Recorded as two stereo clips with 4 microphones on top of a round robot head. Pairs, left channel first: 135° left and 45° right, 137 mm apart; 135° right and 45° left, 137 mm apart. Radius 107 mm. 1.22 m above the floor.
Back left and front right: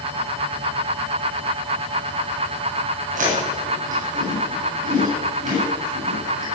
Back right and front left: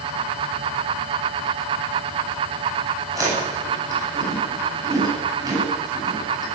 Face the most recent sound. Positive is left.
turn(degrees=-15)